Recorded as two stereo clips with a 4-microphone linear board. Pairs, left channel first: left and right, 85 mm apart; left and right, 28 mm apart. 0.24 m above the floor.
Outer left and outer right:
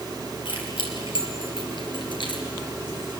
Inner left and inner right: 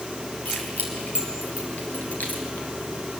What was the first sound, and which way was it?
Keys jangling, 80° left.